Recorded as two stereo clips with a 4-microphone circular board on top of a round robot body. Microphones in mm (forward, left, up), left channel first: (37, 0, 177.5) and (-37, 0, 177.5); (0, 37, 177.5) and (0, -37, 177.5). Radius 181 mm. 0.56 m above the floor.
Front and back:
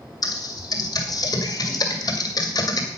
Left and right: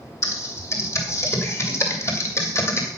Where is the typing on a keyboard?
35° left, 2.5 m.